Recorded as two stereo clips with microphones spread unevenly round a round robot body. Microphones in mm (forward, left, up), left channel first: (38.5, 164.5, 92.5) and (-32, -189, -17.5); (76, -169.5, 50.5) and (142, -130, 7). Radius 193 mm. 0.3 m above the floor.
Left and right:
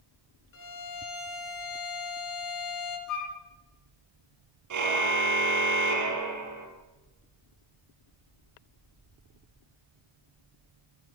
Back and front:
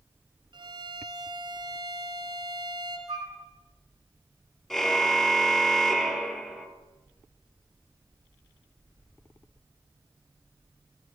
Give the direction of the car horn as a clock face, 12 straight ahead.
2 o'clock.